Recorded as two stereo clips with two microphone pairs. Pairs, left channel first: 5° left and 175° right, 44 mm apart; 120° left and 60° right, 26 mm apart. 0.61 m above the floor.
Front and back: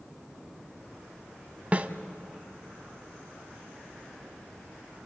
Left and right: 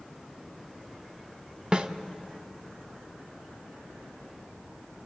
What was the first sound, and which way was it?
A snare drum, 115° right.